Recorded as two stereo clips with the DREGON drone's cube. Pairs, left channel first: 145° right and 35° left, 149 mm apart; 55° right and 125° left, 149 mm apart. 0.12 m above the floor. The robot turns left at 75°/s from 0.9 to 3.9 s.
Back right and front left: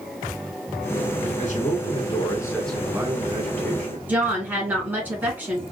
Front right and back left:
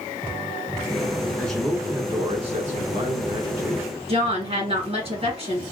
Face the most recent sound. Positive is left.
turn(degrees=110)